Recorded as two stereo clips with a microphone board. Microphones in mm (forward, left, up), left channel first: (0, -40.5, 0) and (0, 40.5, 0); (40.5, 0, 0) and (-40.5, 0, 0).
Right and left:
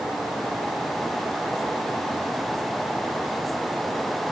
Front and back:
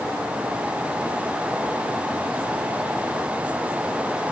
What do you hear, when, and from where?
Only background noise.